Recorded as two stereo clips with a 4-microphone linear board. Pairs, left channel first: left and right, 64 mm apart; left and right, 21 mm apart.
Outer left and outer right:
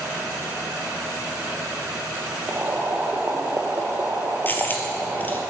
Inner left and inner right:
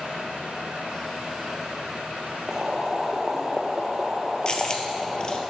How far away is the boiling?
About 1.0 m.